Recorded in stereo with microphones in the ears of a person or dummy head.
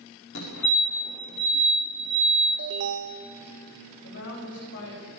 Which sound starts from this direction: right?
An alarm, at 2.6 s.